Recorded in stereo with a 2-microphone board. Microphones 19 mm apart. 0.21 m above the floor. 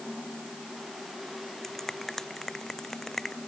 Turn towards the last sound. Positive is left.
turn(degrees=20)  # may be behind; listen again after turning